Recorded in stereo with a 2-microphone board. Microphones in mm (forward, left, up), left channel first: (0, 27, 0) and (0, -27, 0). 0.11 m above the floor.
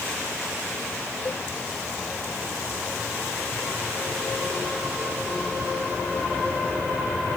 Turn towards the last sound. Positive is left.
turn(degrees=45)  # may be behind; listen again after turning